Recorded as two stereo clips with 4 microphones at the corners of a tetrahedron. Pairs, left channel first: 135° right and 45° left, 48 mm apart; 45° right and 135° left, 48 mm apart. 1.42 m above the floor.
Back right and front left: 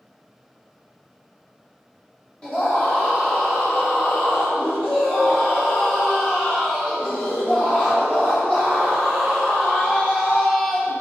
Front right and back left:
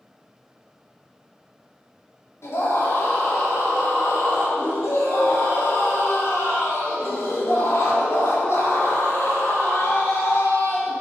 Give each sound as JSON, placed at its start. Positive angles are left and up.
{"t": 2.4, "sound": "a scream", "azimuth_deg": -65, "distance_m": 4.0}